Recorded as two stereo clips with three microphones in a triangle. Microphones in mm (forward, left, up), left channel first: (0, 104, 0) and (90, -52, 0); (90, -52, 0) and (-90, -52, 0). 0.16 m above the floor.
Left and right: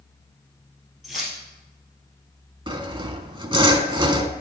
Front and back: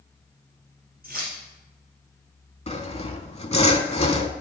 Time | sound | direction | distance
1.0 | keys jangling | 150° right | 2.5 m
2.7 | sawing | 15° right | 0.6 m